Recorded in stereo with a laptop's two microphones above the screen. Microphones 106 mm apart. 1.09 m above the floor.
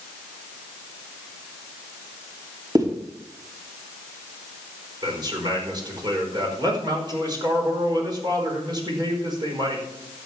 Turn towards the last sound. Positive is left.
turn(degrees=-40)  # may be behind; listen again after turning